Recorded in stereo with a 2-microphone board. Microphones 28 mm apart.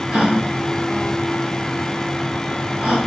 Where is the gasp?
25° right (ahead or behind), 3 m.